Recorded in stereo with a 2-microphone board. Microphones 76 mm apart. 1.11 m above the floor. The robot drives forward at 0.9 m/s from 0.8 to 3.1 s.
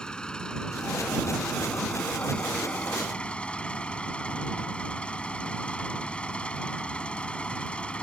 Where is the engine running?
10° left (ahead or behind); by 8.0 s 15° left (ahead or behind).